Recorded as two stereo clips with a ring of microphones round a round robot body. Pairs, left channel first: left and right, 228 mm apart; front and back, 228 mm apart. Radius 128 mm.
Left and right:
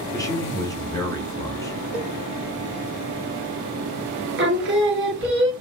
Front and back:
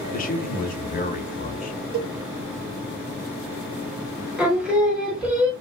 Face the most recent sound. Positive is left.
turn(degrees=-95)